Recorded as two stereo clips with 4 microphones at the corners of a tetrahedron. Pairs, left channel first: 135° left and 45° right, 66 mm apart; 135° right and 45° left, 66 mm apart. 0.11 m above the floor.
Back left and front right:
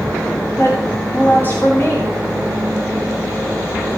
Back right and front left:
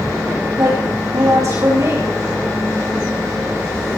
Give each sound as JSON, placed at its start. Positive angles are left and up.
{"t": 0.6, "sound": "a woman speaking", "azimuth_deg": 80, "distance_m": 8.5}